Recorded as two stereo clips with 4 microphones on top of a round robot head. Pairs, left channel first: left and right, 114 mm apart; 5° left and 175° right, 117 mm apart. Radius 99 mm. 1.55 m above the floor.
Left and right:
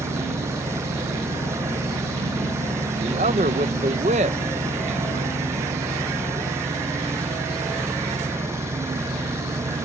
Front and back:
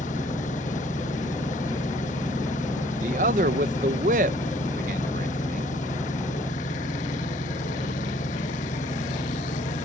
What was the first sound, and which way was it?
An engine running, 25° right.